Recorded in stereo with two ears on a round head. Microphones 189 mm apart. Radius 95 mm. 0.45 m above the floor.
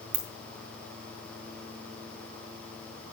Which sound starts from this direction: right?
A ringtone, at 0.1 s.